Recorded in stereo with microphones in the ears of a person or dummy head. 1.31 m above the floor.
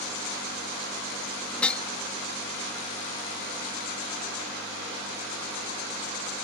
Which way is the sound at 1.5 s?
10° left (ahead or behind).